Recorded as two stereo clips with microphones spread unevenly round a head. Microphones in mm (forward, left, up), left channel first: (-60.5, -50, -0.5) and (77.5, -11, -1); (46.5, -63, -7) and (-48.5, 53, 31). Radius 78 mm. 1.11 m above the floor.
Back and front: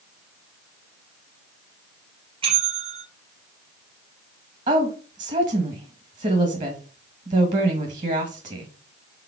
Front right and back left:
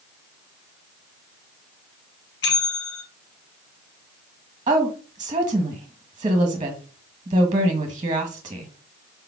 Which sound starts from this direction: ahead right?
A bell, at 2.4 s.